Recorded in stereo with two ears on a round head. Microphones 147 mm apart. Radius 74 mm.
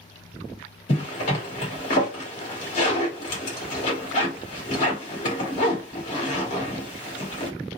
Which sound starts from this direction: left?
A zipper, at 0.9 s.